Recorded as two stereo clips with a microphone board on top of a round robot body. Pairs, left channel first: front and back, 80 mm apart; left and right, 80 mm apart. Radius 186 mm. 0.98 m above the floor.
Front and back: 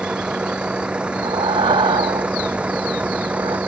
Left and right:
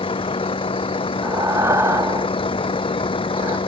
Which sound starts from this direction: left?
A vehicle, at 0.0 s.